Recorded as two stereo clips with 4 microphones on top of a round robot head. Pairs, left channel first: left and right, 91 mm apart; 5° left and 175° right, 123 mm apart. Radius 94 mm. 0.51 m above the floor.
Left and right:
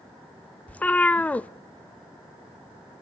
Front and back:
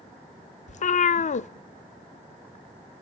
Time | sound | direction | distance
0.7 | a cat meowing | 15° left | 0.5 m